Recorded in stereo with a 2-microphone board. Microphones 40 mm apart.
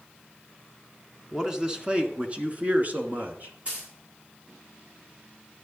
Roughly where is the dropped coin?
Right.